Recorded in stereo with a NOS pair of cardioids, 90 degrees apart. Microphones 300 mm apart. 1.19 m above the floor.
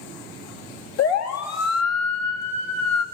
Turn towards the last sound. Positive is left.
turn(degrees=65)